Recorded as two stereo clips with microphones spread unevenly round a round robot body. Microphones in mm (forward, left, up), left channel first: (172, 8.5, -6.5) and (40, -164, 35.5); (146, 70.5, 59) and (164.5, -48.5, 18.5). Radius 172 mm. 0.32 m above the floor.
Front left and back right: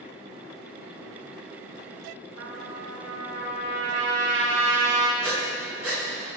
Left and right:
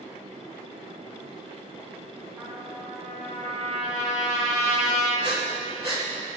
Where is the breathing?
175° left, 1.9 m.